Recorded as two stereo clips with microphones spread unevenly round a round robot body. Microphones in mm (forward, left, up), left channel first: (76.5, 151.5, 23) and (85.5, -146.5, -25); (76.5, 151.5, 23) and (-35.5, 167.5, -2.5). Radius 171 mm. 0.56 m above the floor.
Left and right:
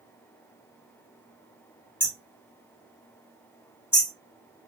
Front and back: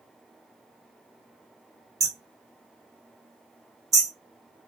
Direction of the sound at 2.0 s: 175° right.